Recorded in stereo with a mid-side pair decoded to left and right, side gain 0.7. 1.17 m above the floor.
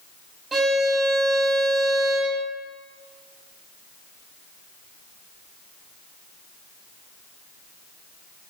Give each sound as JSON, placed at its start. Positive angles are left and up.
{"t": 0.5, "sound": "a violin", "azimuth_deg": -20, "distance_m": 1.4}